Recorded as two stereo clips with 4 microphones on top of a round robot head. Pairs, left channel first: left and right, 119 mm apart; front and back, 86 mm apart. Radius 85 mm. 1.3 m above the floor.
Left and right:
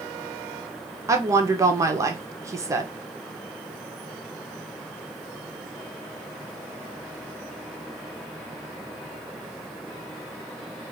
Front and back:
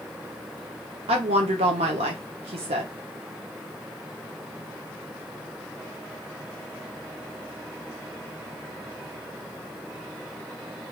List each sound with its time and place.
1.1 s a woman speaking: 155° right, 0.8 m